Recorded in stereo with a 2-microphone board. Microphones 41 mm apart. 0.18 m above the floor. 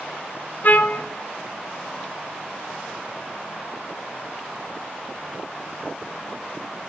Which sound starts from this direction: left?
A trumpet, at 0.6 s.